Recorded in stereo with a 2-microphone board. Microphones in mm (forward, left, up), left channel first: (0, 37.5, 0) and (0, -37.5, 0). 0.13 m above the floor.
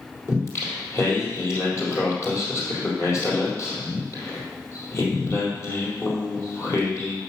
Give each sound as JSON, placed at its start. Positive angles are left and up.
{"t": 0.3, "sound": "singing", "side_deg": 35, "distance_m": 3.5}